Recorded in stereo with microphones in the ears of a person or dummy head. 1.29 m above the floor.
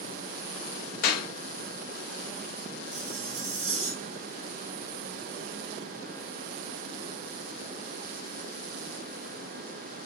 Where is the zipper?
45° right (ahead or behind), 3 m.